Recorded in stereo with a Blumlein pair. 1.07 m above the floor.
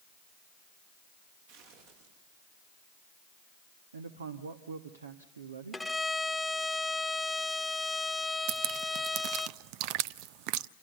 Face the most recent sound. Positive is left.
turn(degrees=-45)